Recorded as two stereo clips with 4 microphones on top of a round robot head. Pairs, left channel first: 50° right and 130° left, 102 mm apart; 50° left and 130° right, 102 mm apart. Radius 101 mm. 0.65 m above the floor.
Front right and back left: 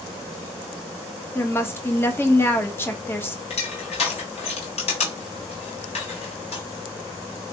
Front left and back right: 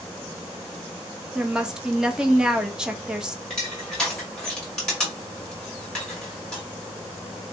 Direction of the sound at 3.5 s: 35° right.